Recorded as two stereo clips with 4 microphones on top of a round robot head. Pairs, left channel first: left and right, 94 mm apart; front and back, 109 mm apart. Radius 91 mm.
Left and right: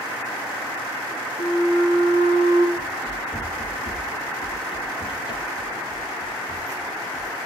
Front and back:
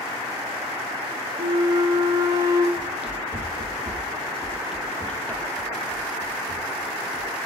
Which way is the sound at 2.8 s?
170° left.